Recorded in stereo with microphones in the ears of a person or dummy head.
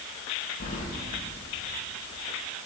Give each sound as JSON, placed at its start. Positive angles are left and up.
{"t": 0.6, "sound": "keys jangling", "side_deg": 45, "distance_m": 1.4}